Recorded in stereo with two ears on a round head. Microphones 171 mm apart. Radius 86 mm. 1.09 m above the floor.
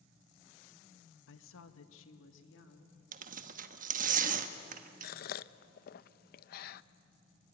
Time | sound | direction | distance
1.3 | a woman speaking | 65° left (ahead or behind) | 1.1 m
3.1 | tearing paper | 45° right (ahead or behind) | 1.2 m
5.0 | a gasp | 50° left (ahead or behind) | 0.5 m